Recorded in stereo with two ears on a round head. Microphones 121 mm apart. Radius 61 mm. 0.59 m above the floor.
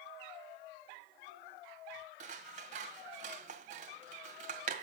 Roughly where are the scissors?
Right.